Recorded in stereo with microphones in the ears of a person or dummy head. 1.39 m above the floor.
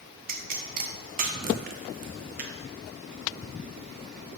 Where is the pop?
45° right (ahead or behind), 0.6 m.